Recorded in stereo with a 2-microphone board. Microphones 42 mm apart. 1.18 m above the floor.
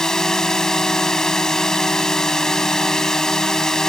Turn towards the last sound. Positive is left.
turn(degrees=10)  # may be behind; listen again after turning